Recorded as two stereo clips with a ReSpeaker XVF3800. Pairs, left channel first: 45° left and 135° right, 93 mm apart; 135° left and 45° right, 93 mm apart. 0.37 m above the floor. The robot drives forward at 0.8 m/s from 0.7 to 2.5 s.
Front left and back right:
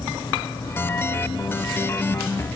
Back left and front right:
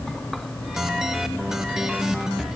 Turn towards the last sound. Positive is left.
No sound to turn to.